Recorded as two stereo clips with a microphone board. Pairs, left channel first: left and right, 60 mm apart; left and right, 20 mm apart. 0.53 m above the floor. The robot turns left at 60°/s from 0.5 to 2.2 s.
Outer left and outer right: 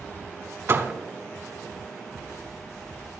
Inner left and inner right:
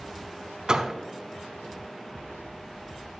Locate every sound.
0.7 s a door slam: 40° right (ahead or behind), 1.2 m; by 0.9 s 25° right (ahead or behind), 1.2 m